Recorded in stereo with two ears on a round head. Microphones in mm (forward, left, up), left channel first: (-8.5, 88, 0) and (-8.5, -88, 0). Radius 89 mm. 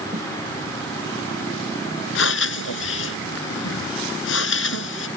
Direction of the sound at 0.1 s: 40° right (ahead or behind).